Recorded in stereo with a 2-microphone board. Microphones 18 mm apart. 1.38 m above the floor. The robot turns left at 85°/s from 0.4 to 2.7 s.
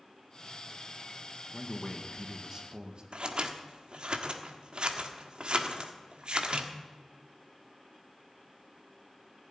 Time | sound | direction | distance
1.5 | a man speaking | 65° left | 2 m
3.1 | scissors | 50° right (ahead or behind) | 1.4 m